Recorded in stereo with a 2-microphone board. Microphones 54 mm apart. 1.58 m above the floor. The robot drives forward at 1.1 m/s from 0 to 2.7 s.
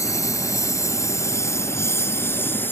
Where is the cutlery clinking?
I don't hear cutlery clinking.